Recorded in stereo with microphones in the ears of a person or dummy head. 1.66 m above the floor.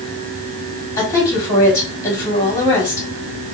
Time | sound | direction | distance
1.0 | a woman speaking | 20° left (ahead or behind) | 1.5 m